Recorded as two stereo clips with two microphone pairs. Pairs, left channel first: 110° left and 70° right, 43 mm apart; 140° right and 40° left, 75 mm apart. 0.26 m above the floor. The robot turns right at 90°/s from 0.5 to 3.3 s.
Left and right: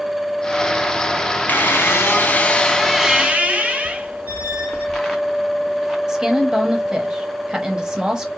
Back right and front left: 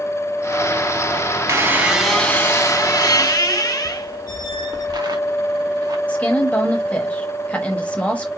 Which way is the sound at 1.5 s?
75° left.